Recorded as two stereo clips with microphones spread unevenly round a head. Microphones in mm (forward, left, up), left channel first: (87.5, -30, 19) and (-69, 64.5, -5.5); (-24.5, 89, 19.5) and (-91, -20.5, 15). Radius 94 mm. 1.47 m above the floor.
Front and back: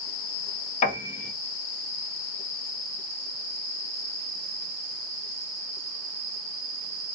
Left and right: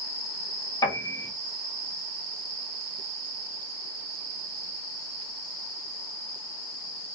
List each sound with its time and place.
0.8 s a piano: 5° right, 0.7 m